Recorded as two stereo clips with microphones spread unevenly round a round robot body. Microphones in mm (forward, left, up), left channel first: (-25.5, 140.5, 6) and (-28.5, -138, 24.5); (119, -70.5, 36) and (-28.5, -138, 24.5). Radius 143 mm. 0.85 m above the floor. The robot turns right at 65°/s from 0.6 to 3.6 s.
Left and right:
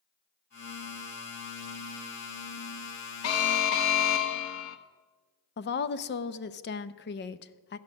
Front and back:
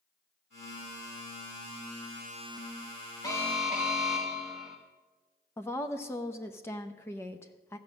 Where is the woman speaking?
100° left, 0.6 m.